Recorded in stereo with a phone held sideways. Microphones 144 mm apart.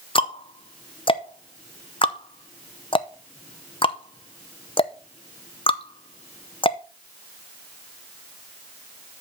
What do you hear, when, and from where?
0.1 s ticking: 40° left (ahead or behind), 0.6 m